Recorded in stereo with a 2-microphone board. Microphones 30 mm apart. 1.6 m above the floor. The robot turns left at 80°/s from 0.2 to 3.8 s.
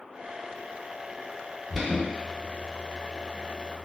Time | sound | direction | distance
1.7 | an alarm | 5° left (ahead or behind) | 1.0 m